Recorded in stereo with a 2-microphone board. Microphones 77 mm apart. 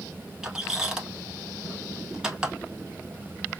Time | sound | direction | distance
0.4 | a squeak | 10° right (ahead or behind) | 0.8 m